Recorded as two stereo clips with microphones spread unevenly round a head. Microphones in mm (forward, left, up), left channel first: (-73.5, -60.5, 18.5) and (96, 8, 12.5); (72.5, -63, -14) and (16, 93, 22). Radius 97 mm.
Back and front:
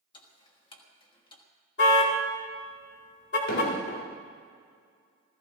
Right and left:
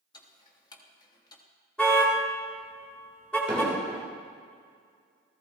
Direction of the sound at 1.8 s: 160° right.